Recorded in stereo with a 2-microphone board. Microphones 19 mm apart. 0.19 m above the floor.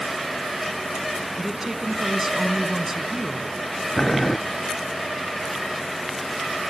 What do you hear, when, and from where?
1.4 s a woman speaking: 20° right (ahead or behind), 1.8 m
4.0 s boiling: 25° left (ahead or behind), 0.6 m